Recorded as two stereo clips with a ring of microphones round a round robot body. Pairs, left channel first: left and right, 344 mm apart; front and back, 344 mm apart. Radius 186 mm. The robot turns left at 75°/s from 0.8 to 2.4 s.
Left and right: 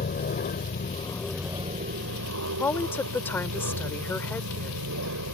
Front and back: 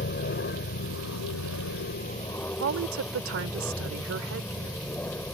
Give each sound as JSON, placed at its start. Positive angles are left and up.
{"t": 0.0, "sound": "an aircraft", "azimuth_deg": 40}
{"t": 2.6, "sound": "a woman speaking", "azimuth_deg": 170}